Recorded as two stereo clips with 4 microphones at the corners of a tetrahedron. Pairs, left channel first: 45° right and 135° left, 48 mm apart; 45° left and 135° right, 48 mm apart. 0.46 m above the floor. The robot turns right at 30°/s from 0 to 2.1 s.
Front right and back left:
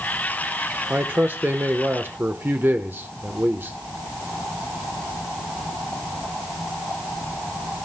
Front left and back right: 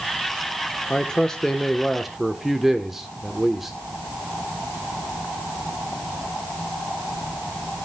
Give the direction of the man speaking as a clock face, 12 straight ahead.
8 o'clock.